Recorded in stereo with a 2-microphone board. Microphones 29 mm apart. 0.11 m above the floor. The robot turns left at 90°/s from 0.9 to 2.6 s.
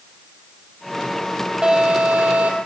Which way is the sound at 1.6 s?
30° right.